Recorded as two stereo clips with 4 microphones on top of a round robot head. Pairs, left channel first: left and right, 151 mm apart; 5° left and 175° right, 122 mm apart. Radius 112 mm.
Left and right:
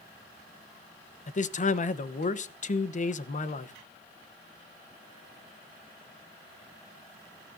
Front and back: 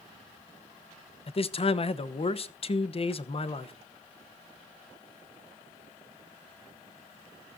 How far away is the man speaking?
About 1.1 m.